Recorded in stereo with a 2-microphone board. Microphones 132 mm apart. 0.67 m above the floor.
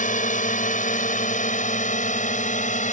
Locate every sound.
0.0 s a drone: 65° left (ahead or behind); by 2.9 s 60° left (ahead or behind)